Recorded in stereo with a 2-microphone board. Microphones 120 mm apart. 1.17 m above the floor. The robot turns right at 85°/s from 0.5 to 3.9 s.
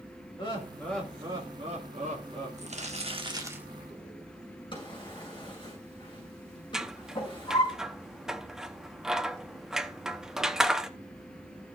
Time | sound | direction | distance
0.4 | laughter | 135° left | 2 m
2.6 | crumpling | 100° right | 1.5 m
4.7 | a drawer | 40° left (ahead or behind) | 6.5 m
6.7 | scissors | 5° right (ahead or behind) | 0.7 m